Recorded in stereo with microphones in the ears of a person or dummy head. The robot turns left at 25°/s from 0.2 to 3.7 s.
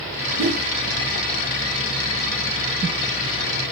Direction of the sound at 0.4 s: 55° right (ahead or behind).